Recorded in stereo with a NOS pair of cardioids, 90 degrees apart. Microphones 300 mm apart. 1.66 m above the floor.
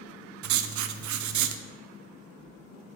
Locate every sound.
0.4 s writing: 65° right, 0.6 m